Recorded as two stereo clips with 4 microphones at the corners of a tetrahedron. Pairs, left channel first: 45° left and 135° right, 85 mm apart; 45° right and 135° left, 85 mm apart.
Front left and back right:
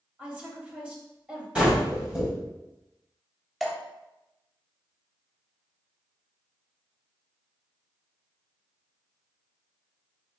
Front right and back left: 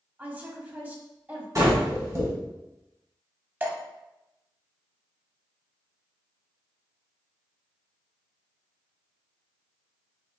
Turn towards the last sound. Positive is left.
turn(degrees=135)